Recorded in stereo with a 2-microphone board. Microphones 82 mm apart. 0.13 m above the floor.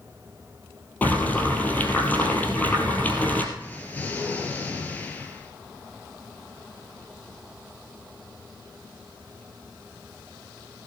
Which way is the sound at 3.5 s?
20° left (ahead or behind).